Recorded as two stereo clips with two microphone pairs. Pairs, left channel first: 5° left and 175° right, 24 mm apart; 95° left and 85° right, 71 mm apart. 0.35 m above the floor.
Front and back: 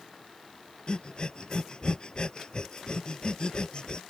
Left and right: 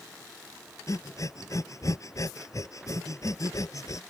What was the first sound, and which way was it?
Breathing, 55° left.